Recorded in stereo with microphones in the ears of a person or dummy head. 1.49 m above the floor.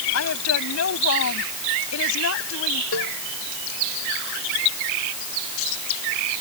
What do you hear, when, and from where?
0.1 s a woman speaking: 80° left
2.9 s a cowbell: 80° left